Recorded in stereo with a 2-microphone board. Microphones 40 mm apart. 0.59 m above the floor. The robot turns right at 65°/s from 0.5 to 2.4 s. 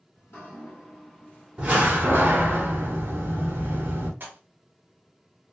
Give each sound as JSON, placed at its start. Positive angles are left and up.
{"t": 0.1, "sound": "dripping", "azimuth_deg": 95, "distance_m": 1.4}
{"t": 1.6, "sound": "a door slam", "azimuth_deg": -160, "distance_m": 1.4}
{"t": 4.2, "sound": "a pop", "side_deg": -50, "distance_m": 1.0}